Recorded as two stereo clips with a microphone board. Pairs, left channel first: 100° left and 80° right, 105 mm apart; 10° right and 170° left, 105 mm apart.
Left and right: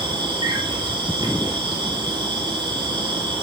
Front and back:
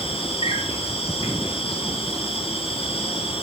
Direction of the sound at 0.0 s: 35° right.